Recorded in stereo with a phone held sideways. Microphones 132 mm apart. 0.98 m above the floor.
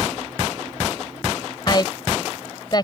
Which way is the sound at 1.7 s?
35° left (ahead or behind).